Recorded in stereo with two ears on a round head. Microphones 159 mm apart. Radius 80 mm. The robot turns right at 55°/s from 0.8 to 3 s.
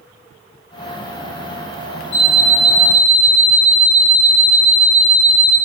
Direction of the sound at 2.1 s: 70° left.